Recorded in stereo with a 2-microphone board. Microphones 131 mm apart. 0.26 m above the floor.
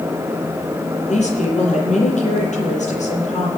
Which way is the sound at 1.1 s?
65° left (ahead or behind).